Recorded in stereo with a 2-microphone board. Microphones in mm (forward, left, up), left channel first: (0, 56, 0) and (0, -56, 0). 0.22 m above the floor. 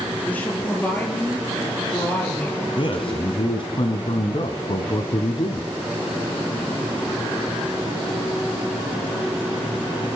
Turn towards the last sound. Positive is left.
turn(degrees=50)  # may be behind; listen again after turning